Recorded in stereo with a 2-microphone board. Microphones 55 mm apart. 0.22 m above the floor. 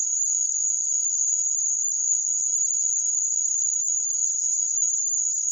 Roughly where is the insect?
Left.